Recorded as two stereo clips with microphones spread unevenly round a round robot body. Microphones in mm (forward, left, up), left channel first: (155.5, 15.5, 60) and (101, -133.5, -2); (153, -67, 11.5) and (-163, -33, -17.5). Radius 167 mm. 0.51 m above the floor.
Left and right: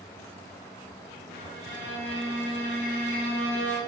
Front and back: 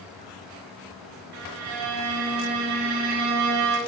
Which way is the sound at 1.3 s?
155° left.